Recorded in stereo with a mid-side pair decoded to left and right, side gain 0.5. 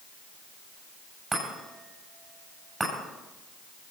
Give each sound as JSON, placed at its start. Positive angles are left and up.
{"t": 1.3, "sound": "a chime", "azimuth_deg": -20, "distance_m": 8.0}